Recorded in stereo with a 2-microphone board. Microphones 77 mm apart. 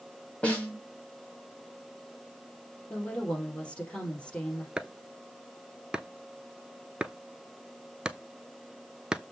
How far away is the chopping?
About 0.5 m.